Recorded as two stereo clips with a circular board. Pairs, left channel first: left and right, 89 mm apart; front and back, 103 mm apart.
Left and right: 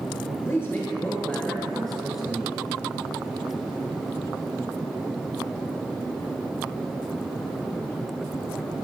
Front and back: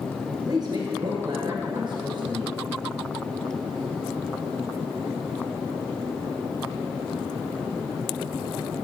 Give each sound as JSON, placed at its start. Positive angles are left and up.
{"t": 0.5, "sound": "a woman speaking", "azimuth_deg": 145, "distance_m": 2.0}